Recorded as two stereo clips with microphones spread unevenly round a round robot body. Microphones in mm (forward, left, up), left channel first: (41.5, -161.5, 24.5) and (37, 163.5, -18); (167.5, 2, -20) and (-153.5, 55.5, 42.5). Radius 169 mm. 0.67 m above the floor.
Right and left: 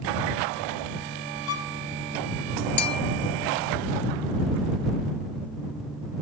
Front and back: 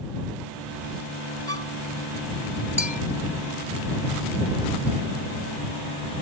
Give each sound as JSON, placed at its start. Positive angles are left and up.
{"t": 1.5, "sound": "a violin", "azimuth_deg": -80}
{"t": 2.8, "sound": "a bell", "azimuth_deg": -90}